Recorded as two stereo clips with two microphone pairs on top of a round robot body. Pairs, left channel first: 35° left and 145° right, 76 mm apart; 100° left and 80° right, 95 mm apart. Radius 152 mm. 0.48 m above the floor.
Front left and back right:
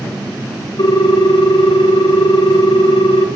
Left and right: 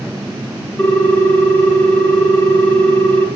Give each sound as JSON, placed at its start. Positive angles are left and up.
{"t": 0.8, "sound": "a ringtone", "azimuth_deg": 25, "distance_m": 0.8}